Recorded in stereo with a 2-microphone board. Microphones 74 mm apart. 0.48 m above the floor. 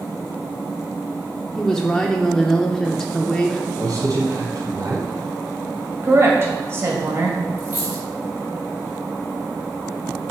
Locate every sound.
1.6 s a woman speaking: 5° left (ahead or behind), 0.8 m
3.8 s a man speaking: 55° right (ahead or behind), 3.5 m
6.0 s a woman speaking: 35° right (ahead or behind), 2.5 m
7.6 s a dropped coin: 25° right (ahead or behind), 3 m